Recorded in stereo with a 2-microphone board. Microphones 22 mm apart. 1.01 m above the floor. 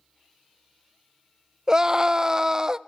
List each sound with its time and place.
1.7 s a scream: 30° right (ahead or behind), 0.6 m